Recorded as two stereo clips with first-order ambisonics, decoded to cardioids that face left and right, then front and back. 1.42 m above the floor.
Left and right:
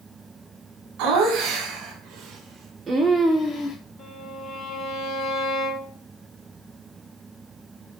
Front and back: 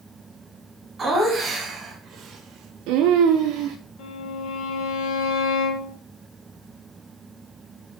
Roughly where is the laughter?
Right.